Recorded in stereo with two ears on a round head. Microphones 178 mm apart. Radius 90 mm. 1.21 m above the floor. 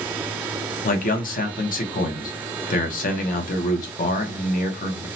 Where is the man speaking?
45° left (ahead or behind), 0.8 m.